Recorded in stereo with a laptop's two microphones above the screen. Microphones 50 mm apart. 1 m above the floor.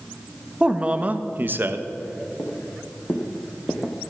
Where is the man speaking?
20° right (ahead or behind), 1.4 m; by 1.9 s 55° right (ahead or behind), 1.2 m.